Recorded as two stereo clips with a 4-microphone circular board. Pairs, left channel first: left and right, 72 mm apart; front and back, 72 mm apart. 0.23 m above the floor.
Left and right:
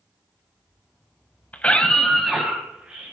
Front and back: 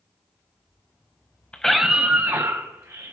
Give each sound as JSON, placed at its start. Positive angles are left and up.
{"t": 1.5, "sound": "a scream", "azimuth_deg": 55, "distance_m": 1.1}